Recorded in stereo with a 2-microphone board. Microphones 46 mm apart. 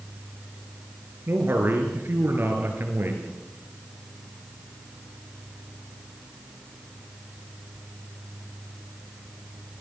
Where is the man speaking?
50° right (ahead or behind), 5 m.